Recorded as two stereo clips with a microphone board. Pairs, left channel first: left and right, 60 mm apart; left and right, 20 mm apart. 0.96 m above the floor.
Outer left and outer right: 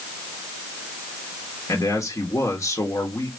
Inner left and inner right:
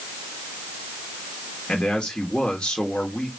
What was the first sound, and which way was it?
A man speaking, 65° left (ahead or behind).